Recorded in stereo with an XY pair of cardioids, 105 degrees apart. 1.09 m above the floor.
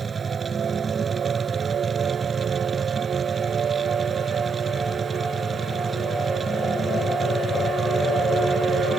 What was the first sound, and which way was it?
A machine running, 30° right.